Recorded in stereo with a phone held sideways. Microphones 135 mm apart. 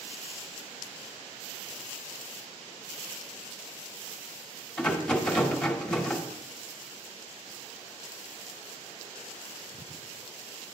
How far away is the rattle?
About 1.1 m.